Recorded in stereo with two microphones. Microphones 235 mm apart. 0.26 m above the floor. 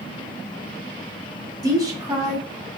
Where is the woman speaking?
15° right (ahead or behind), 1.3 m.